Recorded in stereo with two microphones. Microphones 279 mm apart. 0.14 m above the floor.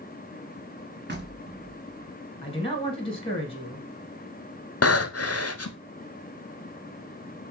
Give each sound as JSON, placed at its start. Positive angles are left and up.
{"t": 1.1, "sound": "knocking", "side_deg": -40, "distance_m": 1.0}
{"t": 2.4, "sound": "a man speaking", "side_deg": 20, "distance_m": 1.0}
{"t": 4.8, "sound": "breathing", "side_deg": 60, "distance_m": 0.5}